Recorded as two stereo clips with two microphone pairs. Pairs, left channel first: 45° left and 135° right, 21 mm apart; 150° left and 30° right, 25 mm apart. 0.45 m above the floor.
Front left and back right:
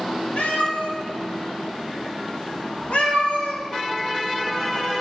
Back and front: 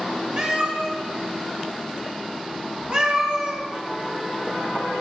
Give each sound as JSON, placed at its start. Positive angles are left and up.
{"t": 0.4, "sound": "a cat meowing", "azimuth_deg": 25, "distance_m": 0.8}